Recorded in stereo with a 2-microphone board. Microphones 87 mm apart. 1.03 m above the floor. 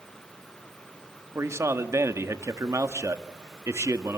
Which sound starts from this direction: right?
A man speaking, at 1.4 s.